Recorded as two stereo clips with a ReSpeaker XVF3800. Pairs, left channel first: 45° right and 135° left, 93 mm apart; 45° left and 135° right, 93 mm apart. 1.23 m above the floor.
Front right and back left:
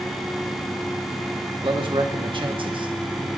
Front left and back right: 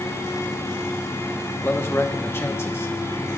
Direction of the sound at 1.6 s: 105° left.